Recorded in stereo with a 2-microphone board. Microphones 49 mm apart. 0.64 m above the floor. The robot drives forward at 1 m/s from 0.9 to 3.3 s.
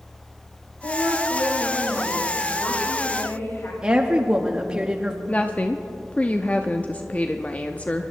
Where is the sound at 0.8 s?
70° left (ahead or behind), 3 m; by 3.7 s 55° left (ahead or behind), 3.5 m.